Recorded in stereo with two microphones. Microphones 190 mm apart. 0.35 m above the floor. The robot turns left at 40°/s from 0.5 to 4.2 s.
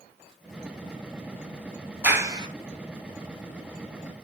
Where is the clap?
10° right (ahead or behind), 2 m; by 2.5 s 25° right (ahead or behind), 2 m.